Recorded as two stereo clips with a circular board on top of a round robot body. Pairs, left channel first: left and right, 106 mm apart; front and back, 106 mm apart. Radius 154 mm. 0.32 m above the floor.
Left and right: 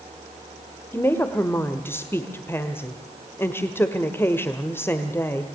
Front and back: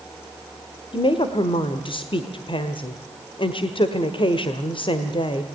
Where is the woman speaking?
25° left, 1.7 m.